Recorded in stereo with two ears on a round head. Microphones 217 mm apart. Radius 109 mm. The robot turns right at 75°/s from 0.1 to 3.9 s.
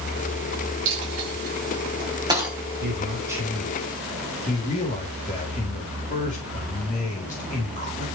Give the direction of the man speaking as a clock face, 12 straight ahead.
2 o'clock.